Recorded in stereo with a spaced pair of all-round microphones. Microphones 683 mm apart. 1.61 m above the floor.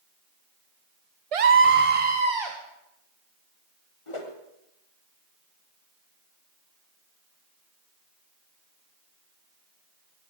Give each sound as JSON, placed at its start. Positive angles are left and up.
{"t": 1.3, "sound": "a scream", "side_deg": -55, "distance_m": 0.6}
{"t": 4.1, "sound": "a whoosh", "side_deg": 45, "distance_m": 1.5}